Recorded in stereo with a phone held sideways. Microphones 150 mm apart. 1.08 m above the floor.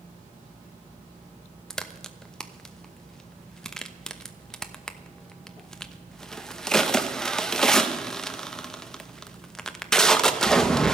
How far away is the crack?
About 0.9 m.